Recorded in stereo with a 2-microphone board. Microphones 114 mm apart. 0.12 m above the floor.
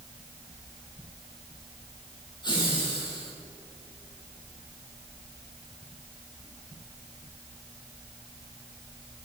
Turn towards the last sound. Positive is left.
turn(degrees=40)  # may be behind; listen again after turning